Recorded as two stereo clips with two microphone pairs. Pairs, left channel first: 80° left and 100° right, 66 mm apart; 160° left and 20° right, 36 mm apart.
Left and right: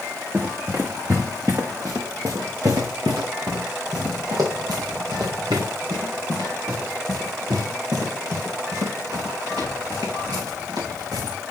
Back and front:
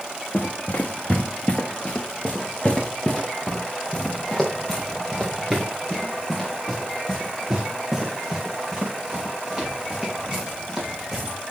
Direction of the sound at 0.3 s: 160° right.